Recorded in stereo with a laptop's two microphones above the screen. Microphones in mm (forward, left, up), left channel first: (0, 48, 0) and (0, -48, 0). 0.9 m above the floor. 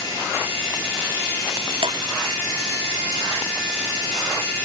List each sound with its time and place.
1.8 s dripping: 65° right (ahead or behind)